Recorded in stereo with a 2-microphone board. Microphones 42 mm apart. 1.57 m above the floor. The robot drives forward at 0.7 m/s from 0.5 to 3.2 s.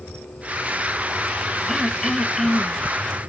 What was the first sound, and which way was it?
Throat clearing, centre (ahead or behind).